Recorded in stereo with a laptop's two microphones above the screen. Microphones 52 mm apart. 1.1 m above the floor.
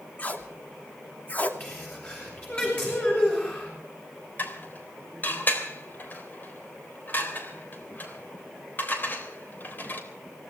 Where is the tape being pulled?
30° left (ahead or behind), 2.5 m.